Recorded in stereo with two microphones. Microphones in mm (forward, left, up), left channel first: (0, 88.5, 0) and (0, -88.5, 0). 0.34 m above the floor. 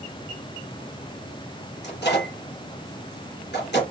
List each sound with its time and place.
1.8 s a microwave: 75° left (ahead or behind), 3.5 m